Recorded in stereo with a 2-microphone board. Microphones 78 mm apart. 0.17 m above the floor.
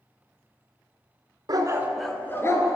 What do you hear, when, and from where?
1.5 s a dog barking: 55° right (ahead or behind), 0.7 m; by 2.8 s 40° left (ahead or behind), 1.2 m